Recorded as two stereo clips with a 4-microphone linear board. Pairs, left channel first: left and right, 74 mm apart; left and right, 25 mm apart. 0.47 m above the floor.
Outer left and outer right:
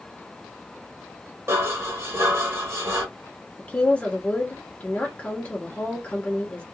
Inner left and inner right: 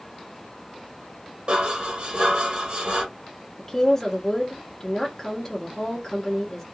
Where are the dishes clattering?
35° right (ahead or behind), 1.0 m.